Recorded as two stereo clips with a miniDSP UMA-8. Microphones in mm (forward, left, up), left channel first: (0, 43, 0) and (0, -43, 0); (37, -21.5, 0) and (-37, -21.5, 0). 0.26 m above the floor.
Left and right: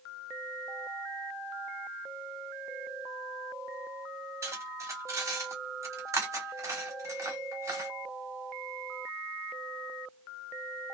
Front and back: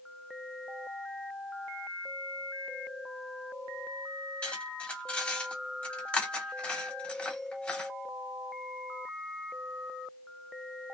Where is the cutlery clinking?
65° right, 0.8 m.